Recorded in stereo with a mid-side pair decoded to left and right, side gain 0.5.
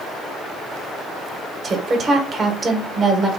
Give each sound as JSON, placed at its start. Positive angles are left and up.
{"t": 1.6, "sound": "a woman speaking", "azimuth_deg": -40, "distance_m": 1.6}